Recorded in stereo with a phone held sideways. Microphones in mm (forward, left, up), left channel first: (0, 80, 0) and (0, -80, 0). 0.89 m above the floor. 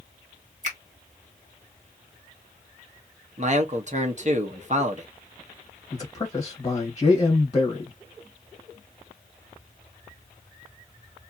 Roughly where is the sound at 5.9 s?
Left.